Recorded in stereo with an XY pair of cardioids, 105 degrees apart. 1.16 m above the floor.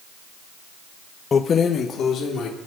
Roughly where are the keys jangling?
Ahead left.